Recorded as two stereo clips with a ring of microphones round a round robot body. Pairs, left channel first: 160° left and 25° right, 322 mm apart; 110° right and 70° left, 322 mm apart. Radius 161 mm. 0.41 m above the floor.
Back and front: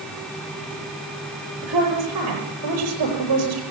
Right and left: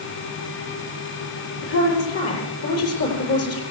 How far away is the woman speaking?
About 9.5 m.